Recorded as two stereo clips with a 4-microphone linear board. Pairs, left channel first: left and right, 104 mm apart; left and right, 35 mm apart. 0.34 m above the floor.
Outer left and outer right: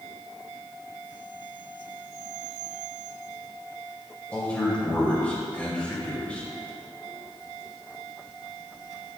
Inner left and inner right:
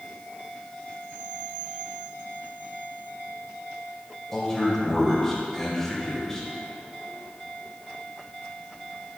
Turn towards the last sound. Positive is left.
turn(degrees=15)  # may be behind; listen again after turning